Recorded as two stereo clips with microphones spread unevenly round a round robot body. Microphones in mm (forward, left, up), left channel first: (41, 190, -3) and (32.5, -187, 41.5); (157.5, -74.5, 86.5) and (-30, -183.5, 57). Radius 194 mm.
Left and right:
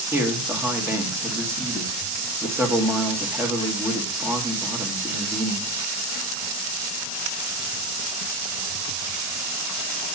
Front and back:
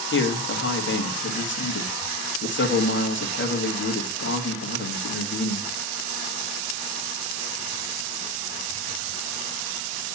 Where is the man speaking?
5° right, 1.6 m.